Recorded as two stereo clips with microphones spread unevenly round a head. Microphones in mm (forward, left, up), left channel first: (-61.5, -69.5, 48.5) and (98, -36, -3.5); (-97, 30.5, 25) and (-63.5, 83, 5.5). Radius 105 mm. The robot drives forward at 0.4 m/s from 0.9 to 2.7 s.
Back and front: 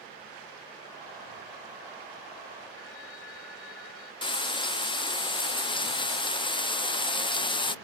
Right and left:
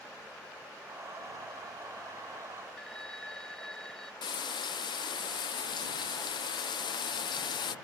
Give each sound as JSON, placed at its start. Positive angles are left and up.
{"t": 2.8, "sound": "a phone ringing", "azimuth_deg": 160}
{"t": 4.2, "sound": "frying", "azimuth_deg": -105}